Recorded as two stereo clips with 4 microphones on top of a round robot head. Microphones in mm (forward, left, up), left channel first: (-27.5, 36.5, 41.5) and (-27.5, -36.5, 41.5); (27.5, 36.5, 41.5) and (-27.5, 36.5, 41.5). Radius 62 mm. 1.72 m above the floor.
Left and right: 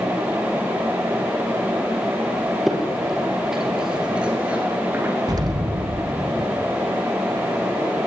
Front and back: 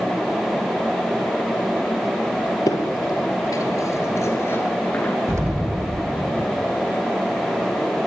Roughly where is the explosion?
Behind right.